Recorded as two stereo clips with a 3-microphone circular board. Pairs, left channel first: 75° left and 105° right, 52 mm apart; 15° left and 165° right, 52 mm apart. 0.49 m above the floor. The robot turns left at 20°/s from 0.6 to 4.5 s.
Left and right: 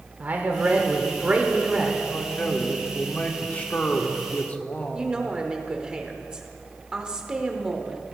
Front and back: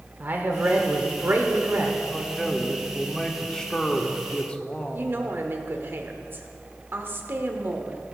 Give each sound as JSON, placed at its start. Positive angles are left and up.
{"t": 0.2, "sound": "a man speaking", "azimuth_deg": -140, "distance_m": 1.5}
{"t": 2.1, "sound": "a man speaking", "azimuth_deg": 110, "distance_m": 1.3}
{"t": 4.9, "sound": "a woman speaking", "azimuth_deg": -170, "distance_m": 1.2}